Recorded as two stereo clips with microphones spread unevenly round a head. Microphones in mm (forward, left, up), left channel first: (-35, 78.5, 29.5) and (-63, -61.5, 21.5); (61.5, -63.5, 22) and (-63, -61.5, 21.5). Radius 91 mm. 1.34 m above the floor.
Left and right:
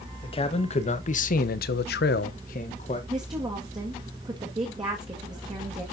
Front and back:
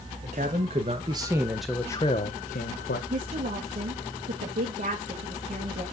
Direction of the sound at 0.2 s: 130° left.